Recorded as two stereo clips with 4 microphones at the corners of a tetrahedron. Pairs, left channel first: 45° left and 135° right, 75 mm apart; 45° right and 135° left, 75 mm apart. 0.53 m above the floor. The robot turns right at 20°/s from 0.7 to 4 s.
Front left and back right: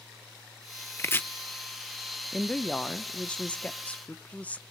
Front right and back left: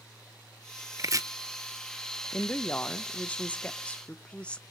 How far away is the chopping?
About 0.8 m.